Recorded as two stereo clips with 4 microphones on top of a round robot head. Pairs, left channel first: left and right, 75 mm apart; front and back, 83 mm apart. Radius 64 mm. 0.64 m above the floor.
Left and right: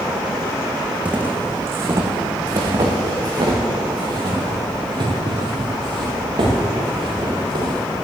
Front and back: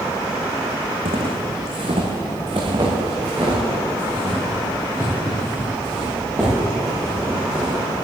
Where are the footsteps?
165° right, 2.5 m; by 7.8 s 110° right, 10 m.